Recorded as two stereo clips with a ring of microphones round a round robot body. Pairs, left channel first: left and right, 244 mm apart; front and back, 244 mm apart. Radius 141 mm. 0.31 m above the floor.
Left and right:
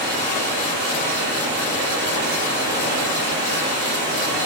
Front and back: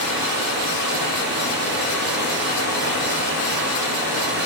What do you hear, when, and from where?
0.0 s running water: 135° right, 7 m